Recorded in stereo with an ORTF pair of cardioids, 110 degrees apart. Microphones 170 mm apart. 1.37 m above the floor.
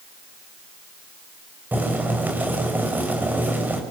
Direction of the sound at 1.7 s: 10° right.